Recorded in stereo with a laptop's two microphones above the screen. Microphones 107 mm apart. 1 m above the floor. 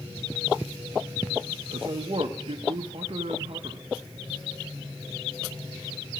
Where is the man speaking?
60° right (ahead or behind), 0.7 m.